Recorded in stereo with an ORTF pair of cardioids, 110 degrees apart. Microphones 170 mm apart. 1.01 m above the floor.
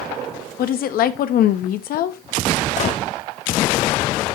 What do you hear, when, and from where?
0.6 s a woman speaking: 65° left, 1.2 m
2.8 s a gunshot: 45° left, 1.2 m